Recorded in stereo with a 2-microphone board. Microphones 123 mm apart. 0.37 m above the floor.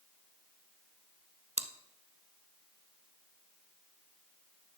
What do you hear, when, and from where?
1.6 s chewing: 70° right (ahead or behind), 0.8 m